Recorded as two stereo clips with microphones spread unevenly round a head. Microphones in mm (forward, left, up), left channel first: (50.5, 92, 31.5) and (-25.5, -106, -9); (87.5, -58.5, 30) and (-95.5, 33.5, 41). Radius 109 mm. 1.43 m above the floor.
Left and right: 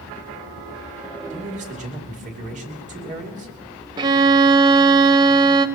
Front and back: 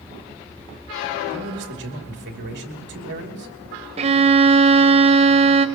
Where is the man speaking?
170° right, 2.5 m.